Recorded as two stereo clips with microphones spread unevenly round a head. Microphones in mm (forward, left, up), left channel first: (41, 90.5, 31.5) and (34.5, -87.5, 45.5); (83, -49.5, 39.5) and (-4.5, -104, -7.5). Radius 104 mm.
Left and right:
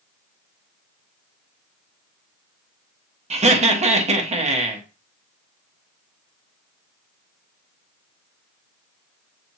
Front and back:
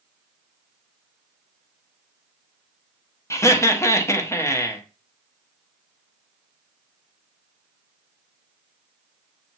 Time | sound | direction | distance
3.3 | laughter | 40° right | 1.2 m